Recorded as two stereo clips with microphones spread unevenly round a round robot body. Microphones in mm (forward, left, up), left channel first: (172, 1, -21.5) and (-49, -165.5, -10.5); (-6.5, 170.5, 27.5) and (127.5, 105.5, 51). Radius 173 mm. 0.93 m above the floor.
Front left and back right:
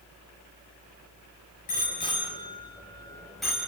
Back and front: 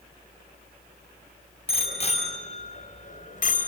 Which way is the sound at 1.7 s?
105° left.